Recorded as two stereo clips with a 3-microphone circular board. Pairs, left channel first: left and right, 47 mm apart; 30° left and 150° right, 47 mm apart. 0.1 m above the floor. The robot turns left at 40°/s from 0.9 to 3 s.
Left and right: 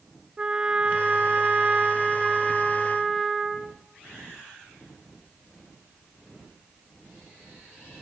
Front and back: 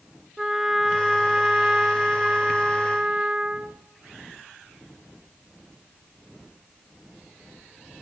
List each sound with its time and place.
0.4 s a trumpet: 75° right, 0.6 m; by 3.8 s 155° right, 0.6 m